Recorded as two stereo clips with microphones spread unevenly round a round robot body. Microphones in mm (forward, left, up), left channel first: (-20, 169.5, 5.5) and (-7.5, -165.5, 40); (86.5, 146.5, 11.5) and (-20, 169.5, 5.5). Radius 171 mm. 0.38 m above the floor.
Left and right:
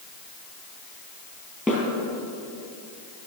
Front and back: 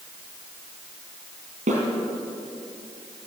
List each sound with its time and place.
1.7 s a snare drum: 175° right, 4 m